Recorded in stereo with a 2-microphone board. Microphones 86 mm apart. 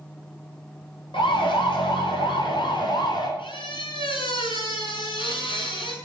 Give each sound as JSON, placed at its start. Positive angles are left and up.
{"t": 1.1, "sound": "a siren", "side_deg": 85, "distance_m": 5.0}
{"t": 3.4, "sound": "a squeak", "side_deg": 75, "distance_m": 6.0}